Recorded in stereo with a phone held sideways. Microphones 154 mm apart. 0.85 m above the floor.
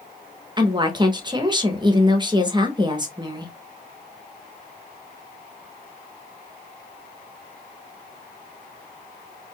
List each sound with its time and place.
0.6 s a woman speaking: 25° right (ahead or behind), 0.9 m